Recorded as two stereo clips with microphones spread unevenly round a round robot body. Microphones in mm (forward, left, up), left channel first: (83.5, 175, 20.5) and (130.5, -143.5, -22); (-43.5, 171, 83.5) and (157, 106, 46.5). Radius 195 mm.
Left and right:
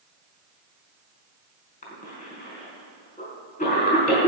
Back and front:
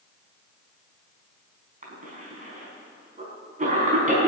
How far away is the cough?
About 4.5 m.